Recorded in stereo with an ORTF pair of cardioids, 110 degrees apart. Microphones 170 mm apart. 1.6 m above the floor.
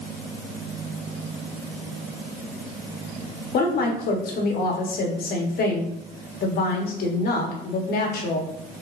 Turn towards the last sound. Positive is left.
turn(degrees=55)